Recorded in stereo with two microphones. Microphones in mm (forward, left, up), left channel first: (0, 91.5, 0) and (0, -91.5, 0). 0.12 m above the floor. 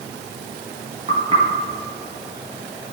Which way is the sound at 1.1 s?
35° right (ahead or behind).